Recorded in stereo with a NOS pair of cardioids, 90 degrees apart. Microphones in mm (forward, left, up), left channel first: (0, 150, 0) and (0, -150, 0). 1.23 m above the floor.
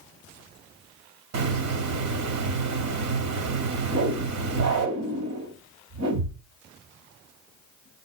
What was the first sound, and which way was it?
A hiss, 60° right.